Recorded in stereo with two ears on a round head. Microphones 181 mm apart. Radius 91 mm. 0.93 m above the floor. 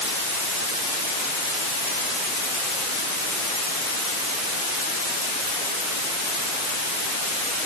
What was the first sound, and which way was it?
Only background noise.